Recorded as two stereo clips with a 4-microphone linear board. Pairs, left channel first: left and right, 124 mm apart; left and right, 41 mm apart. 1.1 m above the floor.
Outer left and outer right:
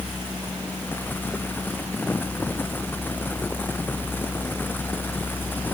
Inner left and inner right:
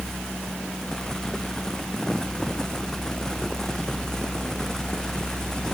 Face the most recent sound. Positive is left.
No sound to turn to.